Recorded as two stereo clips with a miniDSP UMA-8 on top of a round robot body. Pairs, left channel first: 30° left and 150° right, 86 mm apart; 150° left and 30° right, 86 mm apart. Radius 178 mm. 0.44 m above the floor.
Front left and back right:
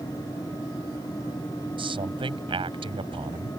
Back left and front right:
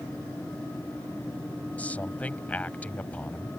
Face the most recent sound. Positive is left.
turn(degrees=-135)